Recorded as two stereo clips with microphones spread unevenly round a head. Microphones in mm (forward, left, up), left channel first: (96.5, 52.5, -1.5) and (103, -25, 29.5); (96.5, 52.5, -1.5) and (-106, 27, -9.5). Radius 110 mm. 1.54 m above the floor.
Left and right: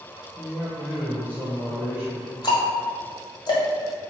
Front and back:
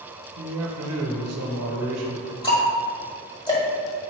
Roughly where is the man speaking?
Behind.